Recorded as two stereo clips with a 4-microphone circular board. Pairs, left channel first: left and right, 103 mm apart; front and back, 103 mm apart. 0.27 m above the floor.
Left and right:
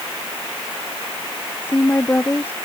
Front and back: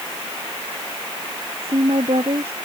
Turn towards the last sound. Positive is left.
turn(degrees=160)